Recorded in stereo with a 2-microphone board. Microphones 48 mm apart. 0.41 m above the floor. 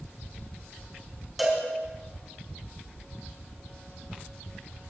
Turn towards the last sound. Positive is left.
turn(degrees=-5)  # may be behind; listen again after turning